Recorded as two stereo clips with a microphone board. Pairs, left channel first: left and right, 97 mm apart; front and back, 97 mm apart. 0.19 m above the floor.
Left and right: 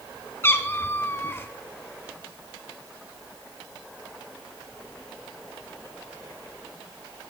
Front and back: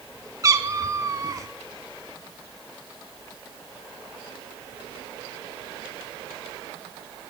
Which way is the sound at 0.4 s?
145° left.